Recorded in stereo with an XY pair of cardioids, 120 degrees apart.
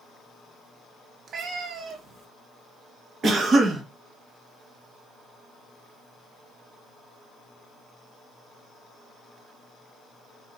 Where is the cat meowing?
50° right, 1.0 m.